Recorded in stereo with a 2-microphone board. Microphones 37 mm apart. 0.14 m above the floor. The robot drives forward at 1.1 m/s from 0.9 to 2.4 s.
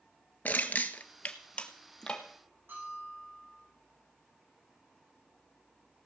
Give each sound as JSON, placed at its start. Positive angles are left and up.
{"t": 0.5, "sound": "crushing", "side_deg": 60, "distance_m": 0.9}
{"t": 2.7, "sound": "a bell", "side_deg": -85, "distance_m": 8.5}